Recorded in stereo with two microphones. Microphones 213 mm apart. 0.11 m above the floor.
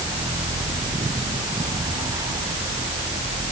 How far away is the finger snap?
I don't hear a finger snap.